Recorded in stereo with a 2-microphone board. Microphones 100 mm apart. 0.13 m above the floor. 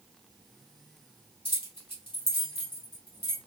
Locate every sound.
1.4 s keys jangling: 65° left (ahead or behind), 2 m